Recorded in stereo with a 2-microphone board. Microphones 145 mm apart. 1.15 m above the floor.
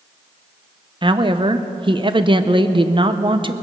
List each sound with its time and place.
1.0 s a woman speaking: 35° right (ahead or behind), 0.7 m